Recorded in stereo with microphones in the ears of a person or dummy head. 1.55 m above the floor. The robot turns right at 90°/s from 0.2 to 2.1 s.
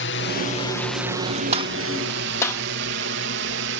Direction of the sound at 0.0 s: 55° left (ahead or behind).